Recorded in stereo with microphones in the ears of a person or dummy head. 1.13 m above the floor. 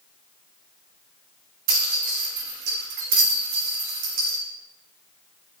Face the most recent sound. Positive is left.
turn(degrees=-55)  # may be behind; listen again after turning